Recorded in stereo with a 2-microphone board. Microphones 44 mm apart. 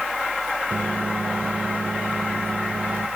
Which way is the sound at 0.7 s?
45° right (ahead or behind).